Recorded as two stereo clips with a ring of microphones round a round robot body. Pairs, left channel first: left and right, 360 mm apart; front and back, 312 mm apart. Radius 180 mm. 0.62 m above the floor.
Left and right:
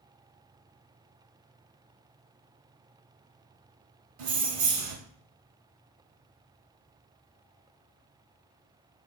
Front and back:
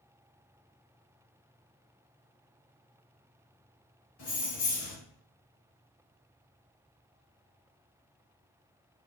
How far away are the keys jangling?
About 1.4 m.